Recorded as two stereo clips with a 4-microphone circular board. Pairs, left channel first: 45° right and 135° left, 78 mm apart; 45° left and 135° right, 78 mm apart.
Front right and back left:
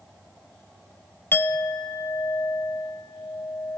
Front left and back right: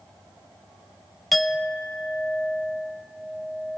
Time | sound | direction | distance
1.3 | a clink | 45° right | 0.7 m